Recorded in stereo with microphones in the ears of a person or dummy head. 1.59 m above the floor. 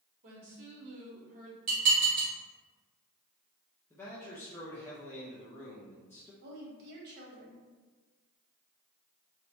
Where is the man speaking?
10° left (ahead or behind), 0.5 m.